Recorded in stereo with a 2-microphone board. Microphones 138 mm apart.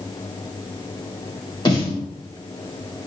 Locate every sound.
1.6 s a snare drum: 30° left (ahead or behind), 1.1 m